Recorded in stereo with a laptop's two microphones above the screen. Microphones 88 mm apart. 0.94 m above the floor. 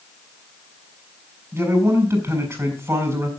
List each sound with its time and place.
1.5 s a man speaking: 25° right (ahead or behind), 7.5 m